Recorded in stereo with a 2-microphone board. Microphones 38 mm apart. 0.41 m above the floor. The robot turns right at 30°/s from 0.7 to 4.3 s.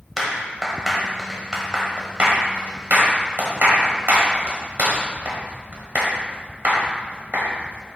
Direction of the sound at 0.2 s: 5° left (ahead or behind).